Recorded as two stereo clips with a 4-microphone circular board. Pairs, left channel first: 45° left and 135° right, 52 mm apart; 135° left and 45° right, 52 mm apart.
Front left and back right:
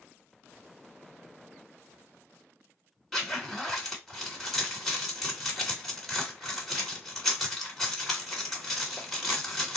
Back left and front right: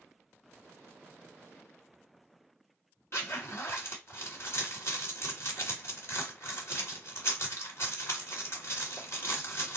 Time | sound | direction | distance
3.1 | a zipper | 130° left | 2.0 m